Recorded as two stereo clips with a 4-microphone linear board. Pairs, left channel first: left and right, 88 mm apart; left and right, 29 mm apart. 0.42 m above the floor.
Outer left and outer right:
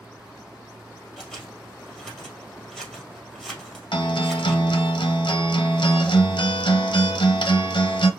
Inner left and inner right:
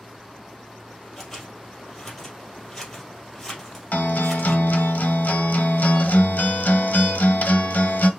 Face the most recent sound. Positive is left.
turn(degrees=70)  # may be behind; listen again after turning